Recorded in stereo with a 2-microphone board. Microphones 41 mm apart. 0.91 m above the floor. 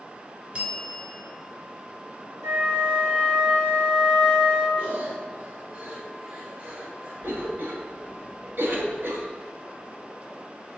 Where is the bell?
40° right (ahead or behind), 2.5 m.